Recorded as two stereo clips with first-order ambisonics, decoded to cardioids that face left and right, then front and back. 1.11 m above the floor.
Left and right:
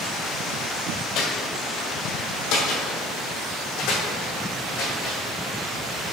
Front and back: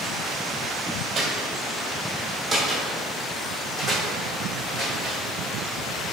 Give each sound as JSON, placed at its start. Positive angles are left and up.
{"t": 1.1, "sound": "footsteps", "azimuth_deg": 105, "distance_m": 1.6}